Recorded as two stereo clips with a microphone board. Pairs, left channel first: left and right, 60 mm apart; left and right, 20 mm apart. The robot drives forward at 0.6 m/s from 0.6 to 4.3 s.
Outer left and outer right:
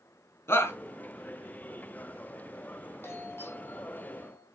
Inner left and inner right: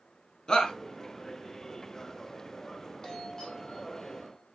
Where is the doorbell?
40° left (ahead or behind), 2.5 m; by 4.5 s 35° left (ahead or behind), 2.5 m.